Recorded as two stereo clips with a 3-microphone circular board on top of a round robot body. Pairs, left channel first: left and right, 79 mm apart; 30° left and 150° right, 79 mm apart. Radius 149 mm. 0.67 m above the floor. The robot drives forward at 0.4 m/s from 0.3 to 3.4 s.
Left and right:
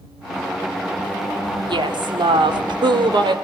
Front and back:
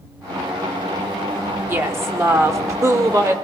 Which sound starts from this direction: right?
A woman speaking, at 1.7 s.